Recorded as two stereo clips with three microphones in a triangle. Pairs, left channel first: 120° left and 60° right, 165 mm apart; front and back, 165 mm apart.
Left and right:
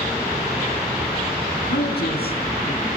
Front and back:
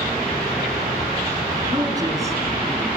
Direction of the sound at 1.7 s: 115° left.